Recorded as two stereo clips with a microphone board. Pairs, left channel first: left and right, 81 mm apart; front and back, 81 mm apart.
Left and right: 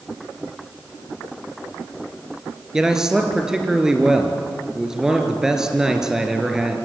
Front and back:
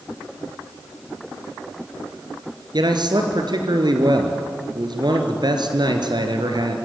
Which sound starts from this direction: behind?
A man speaking, at 2.7 s.